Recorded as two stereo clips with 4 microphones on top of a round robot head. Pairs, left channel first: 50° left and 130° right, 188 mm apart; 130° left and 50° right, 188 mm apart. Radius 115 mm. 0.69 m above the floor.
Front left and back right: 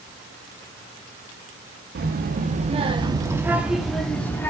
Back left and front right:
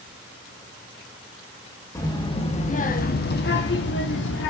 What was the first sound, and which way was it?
A child speaking, 160° right.